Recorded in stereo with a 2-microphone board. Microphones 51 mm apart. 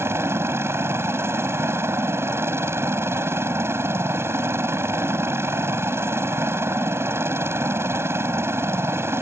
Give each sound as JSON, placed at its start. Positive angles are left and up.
{"t": 0.0, "sound": "a helicopter", "side_deg": -55}